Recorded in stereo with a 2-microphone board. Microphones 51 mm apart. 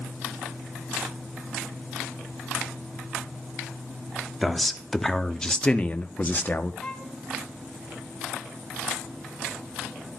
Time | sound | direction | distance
4.4 | a man speaking | centre (ahead or behind) | 1.2 m
6.8 | a violin | 15° left (ahead or behind) | 1.7 m